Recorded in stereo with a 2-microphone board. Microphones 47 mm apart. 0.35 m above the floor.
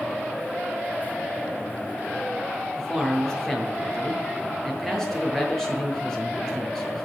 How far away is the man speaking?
About 7 m.